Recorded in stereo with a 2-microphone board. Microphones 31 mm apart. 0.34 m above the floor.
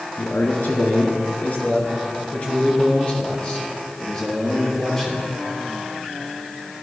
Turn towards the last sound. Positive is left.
turn(degrees=20)  # may be behind; listen again after turning